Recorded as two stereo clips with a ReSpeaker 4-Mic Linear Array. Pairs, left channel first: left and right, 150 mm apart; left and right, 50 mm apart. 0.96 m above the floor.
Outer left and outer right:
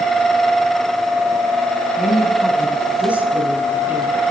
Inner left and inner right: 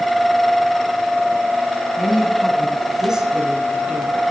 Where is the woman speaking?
Centre (ahead or behind), 9.5 m; by 4.2 s 15° right (ahead or behind), 10 m.